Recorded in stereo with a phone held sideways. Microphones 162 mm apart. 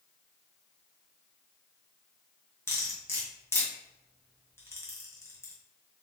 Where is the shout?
No shout in this recording.